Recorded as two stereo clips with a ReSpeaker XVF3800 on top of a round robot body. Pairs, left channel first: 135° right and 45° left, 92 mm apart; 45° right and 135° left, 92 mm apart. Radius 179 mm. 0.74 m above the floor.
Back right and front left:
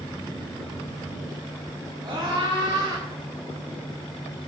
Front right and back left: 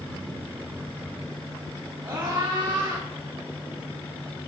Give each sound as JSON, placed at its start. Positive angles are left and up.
{"t": 2.0, "sound": "a scream", "azimuth_deg": 85, "distance_m": 6.0}